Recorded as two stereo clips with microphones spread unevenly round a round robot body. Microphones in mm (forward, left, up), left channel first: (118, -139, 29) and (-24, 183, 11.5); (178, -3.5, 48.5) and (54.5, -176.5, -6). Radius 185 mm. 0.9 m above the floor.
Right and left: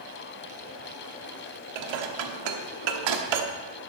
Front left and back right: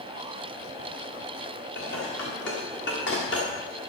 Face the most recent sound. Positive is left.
turn(degrees=115)